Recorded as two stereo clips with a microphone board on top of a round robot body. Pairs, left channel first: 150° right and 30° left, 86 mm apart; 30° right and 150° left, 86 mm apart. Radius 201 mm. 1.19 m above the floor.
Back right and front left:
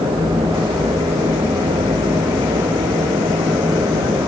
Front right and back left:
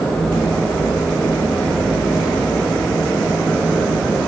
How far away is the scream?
I don't hear a scream.